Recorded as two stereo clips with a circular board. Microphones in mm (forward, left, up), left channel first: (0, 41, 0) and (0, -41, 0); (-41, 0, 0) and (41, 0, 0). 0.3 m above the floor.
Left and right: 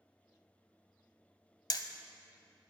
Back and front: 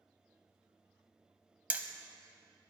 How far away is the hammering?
About 0.7 m.